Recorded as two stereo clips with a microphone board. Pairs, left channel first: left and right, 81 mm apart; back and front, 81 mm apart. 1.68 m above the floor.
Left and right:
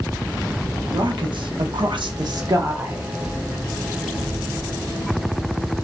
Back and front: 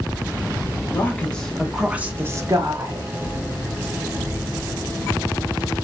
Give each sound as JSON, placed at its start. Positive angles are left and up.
{"t": 0.9, "sound": "a woman speaking", "azimuth_deg": -115, "distance_m": 0.8}